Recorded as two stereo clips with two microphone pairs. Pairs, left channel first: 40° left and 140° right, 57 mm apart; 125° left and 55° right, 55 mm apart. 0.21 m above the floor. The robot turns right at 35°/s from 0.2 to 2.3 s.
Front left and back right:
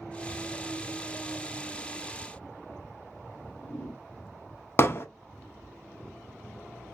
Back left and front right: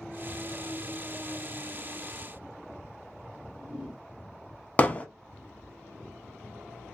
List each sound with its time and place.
3.3 s a whoosh: straight ahead, 1.3 m
4.8 s hammering: 75° left, 0.6 m